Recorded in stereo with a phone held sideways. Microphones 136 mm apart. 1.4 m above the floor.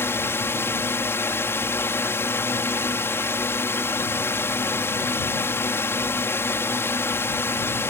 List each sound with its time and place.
0.0 s a drone: 15° left (ahead or behind)